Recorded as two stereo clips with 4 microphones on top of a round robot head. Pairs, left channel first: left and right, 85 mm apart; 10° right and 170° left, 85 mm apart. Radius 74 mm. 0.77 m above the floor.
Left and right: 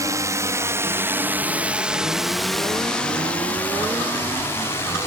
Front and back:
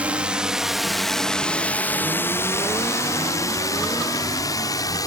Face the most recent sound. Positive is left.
turn(degrees=30)